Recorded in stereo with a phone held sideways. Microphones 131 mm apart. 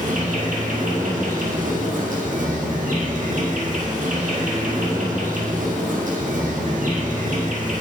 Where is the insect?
70° right (ahead or behind), 1.4 m.